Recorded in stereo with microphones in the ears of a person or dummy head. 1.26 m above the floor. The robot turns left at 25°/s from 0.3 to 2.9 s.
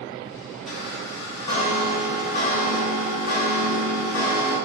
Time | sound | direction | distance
0.7 | a chime | straight behind | 1.3 m